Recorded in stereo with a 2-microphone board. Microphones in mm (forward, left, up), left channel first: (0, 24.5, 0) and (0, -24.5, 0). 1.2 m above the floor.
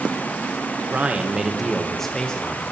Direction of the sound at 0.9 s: 35° right (ahead or behind).